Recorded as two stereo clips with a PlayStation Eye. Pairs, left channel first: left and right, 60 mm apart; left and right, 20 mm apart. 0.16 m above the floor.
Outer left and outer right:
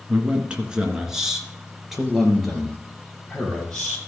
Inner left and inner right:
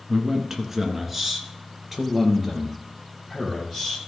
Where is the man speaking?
25° right (ahead or behind), 1.8 m; by 4.0 s 10° left (ahead or behind), 3.5 m.